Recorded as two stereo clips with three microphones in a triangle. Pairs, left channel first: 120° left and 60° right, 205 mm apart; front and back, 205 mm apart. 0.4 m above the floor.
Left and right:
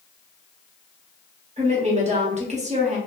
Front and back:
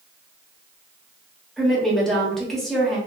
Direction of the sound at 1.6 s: 85° right.